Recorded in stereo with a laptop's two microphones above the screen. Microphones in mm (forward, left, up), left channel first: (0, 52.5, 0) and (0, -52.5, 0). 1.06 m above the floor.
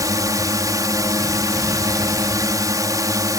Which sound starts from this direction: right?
A drone, at 0.0 s.